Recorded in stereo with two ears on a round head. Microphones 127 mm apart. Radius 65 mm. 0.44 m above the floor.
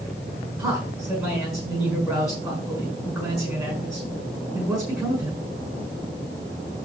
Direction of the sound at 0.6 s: 5° right (ahead or behind).